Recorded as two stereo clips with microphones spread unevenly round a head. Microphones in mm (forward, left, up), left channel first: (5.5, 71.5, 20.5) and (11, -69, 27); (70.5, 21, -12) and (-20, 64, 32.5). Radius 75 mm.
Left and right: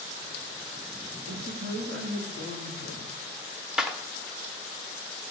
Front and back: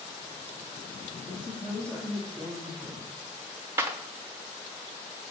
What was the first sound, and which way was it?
A woman speaking, 115° right.